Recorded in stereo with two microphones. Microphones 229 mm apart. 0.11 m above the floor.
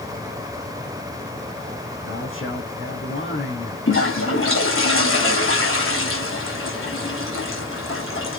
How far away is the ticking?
No ticking in this recording.